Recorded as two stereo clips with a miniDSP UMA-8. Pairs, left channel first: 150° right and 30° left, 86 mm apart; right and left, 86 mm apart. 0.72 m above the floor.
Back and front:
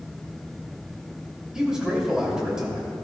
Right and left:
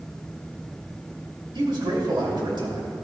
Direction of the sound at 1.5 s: 110° left.